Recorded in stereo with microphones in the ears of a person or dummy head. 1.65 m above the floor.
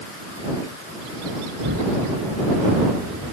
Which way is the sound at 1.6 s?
55° right (ahead or behind).